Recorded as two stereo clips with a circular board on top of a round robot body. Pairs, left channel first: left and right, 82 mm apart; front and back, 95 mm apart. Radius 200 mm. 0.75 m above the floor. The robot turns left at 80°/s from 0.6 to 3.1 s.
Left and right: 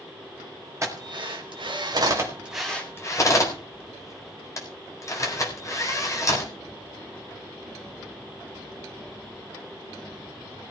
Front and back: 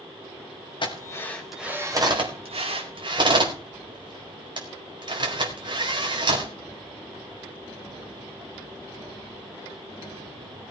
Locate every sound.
0.8 s a drill: 35° right, 4.5 m; by 6.5 s 140° left, 4.5 m